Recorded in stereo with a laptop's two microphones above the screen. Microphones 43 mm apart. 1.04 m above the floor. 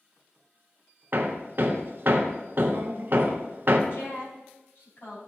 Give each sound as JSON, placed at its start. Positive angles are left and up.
{"t": 1.1, "sound": "hammering", "side_deg": -50, "distance_m": 0.7}
{"t": 3.9, "sound": "a woman speaking", "side_deg": 60, "distance_m": 4.5}